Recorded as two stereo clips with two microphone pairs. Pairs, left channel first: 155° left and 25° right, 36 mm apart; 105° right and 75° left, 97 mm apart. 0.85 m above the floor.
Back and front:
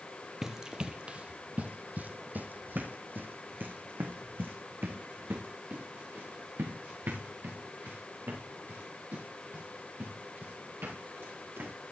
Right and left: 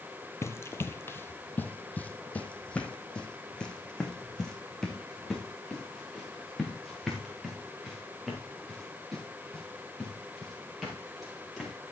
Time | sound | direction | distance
0.4 | running footsteps | 85° right | 0.9 m